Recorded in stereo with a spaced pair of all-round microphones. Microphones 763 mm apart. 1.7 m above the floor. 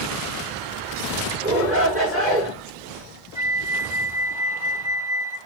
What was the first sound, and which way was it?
A shout, 10° right (ahead or behind).